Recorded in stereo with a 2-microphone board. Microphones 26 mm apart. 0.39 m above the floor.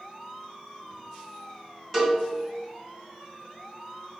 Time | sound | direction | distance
1.9 | a cowbell | 5° left (ahead or behind) | 2 m